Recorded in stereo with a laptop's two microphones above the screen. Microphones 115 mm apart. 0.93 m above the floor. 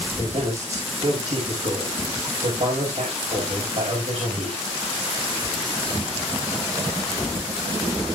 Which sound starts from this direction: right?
A man speaking, at 0.2 s.